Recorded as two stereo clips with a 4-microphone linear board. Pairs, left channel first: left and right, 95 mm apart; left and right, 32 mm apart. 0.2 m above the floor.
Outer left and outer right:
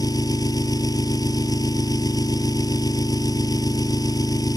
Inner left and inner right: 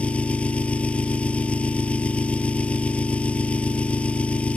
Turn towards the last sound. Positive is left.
turn(degrees=40)  # may be behind; listen again after turning